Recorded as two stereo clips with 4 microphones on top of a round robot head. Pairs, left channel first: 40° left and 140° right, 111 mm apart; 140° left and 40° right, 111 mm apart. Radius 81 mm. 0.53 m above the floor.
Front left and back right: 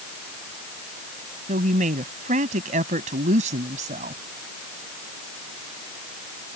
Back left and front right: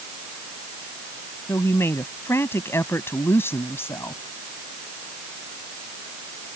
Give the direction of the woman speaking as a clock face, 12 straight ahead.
5 o'clock.